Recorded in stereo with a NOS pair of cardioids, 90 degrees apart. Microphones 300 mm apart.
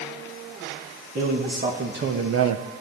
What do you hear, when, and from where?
1.1 s a man speaking: 30° right, 2 m; by 2.6 s 70° right, 0.5 m